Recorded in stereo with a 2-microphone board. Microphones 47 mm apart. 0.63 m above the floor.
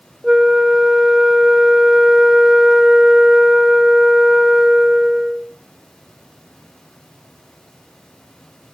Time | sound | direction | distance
0.2 | a flute | 10° right (ahead or behind) | 0.8 m